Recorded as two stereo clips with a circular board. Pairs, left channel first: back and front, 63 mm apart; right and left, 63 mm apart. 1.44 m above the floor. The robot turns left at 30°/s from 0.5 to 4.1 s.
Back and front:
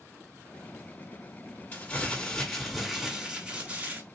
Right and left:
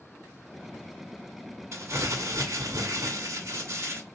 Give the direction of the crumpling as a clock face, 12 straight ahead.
8 o'clock.